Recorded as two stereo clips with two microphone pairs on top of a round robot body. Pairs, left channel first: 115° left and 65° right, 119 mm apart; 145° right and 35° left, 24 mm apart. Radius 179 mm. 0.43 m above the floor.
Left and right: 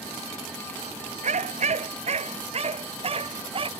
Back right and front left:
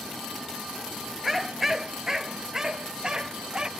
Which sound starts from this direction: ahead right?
A dog barking, at 1.2 s.